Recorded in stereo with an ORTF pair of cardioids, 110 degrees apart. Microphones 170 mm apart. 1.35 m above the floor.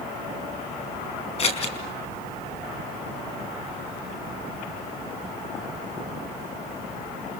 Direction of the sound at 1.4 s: 35° left.